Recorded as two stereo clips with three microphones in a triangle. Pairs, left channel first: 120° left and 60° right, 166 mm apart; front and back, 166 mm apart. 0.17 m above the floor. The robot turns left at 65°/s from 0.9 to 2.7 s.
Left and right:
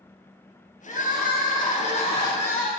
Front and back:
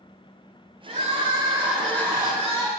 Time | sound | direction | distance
0.9 | crying | 150° left | 2.5 m